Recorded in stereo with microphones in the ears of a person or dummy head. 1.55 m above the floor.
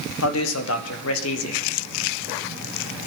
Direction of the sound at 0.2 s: 80° left.